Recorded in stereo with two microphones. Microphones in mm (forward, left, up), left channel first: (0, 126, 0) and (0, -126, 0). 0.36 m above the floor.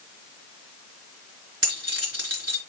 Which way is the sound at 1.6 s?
70° right (ahead or behind).